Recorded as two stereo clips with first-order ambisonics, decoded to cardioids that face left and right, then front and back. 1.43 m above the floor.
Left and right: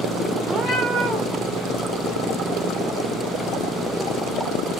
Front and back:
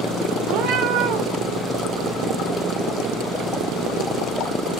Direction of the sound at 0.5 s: 175° right.